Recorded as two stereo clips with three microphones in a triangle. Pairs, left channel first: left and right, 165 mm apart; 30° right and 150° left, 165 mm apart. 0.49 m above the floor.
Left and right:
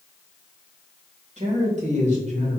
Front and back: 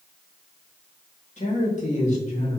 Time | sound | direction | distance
1.4 | a man speaking | 60° right | 1.9 m